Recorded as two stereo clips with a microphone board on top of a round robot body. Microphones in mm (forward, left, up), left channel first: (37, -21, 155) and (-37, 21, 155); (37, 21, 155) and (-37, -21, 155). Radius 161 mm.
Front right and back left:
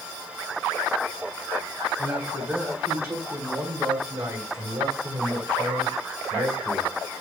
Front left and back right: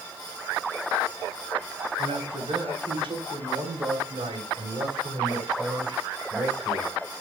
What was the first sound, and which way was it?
A man speaking, 140° right.